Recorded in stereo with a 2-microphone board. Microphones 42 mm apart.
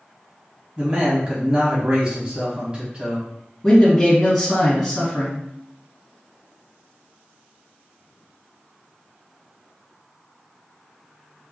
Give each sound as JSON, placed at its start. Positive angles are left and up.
{"t": 0.8, "sound": "a man speaking", "side_deg": -25, "distance_m": 1.0}
{"t": 3.6, "sound": "a man speaking", "side_deg": 5, "distance_m": 1.4}